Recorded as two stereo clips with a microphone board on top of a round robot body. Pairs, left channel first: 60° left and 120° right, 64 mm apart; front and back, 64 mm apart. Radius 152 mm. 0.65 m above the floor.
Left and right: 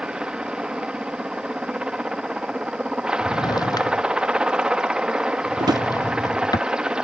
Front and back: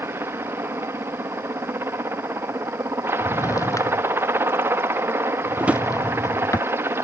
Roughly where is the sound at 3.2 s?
Ahead left.